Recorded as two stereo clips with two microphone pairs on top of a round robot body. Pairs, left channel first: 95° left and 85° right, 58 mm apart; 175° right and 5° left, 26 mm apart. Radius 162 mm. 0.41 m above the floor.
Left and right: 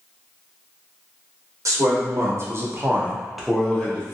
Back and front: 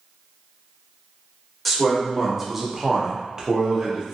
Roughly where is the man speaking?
Right.